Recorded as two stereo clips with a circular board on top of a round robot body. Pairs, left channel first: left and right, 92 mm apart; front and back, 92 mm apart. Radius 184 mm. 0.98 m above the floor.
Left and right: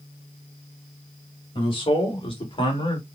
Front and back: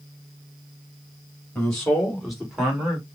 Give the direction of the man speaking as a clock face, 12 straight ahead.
9 o'clock.